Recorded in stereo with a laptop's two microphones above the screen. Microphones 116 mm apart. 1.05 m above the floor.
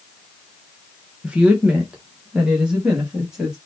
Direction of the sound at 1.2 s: 10° right (ahead or behind).